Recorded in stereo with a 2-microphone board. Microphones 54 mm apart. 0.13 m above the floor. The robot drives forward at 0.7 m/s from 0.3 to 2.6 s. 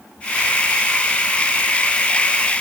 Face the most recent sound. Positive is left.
No sound to turn to.